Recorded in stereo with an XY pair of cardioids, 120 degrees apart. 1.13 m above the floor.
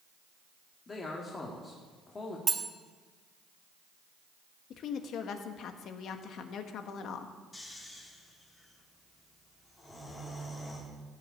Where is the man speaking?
30° left, 2 m.